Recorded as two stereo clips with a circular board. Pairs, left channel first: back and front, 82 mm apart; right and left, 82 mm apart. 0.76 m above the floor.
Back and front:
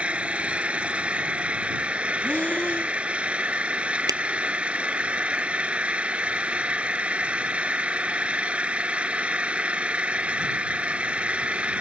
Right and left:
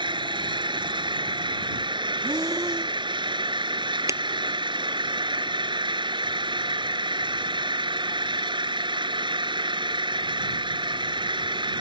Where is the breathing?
110° left.